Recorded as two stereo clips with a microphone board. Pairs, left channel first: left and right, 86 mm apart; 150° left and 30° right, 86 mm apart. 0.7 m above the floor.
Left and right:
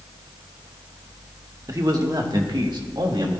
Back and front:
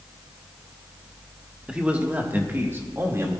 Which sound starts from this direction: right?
A man speaking, at 1.7 s.